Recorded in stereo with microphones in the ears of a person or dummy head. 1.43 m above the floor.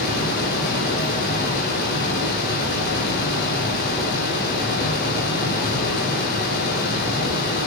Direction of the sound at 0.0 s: 50° left (ahead or behind).